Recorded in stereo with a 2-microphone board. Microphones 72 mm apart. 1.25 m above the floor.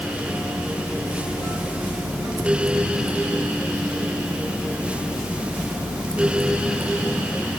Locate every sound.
Only background noise.